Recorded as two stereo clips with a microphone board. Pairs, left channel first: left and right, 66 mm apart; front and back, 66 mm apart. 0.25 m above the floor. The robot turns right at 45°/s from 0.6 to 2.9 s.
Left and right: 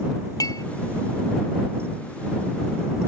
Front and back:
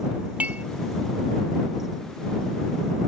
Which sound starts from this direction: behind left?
Dishes clattering, at 0.4 s.